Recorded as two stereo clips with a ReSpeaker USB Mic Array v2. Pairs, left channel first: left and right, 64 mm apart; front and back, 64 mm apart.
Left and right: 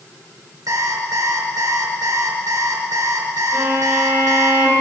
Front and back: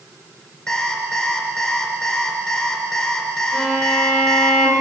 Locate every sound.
0.7 s an alarm clock: 75° right, 3 m
3.5 s a violin: 30° right, 6 m